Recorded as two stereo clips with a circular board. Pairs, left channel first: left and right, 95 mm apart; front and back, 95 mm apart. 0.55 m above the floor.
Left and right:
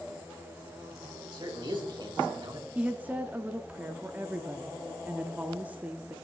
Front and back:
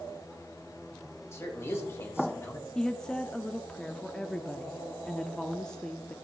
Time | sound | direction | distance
1.3 | a man speaking | 60° right | 3 m
2.8 | a woman speaking | 65° right | 0.6 m